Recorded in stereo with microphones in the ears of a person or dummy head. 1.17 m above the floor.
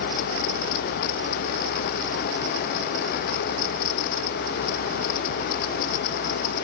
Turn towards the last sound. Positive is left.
No sound to turn to.